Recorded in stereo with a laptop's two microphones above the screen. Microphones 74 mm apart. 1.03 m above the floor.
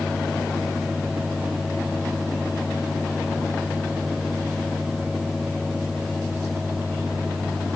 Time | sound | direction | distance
0.0 | a fan | 5° right (ahead or behind) | ?